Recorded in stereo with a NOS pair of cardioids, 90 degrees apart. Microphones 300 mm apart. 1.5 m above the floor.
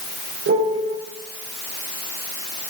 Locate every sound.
0.5 s a piano: 45° right, 4 m